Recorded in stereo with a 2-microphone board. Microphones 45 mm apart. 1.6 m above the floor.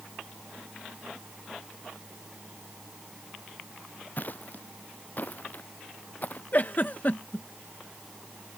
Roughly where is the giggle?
Left.